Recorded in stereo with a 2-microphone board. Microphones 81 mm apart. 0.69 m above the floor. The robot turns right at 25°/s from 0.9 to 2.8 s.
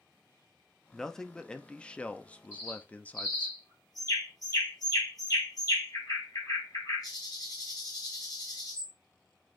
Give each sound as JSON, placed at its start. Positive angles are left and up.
{"t": 0.9, "sound": "a man speaking", "side_deg": 5, "distance_m": 0.5}
{"t": 2.5, "sound": "a bird", "side_deg": 40, "distance_m": 5.0}